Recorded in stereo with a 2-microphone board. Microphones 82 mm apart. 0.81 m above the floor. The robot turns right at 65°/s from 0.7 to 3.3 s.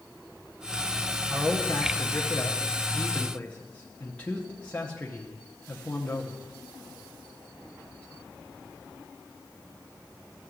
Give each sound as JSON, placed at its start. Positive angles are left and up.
{"t": 1.3, "sound": "a man speaking", "side_deg": 10, "distance_m": 0.7}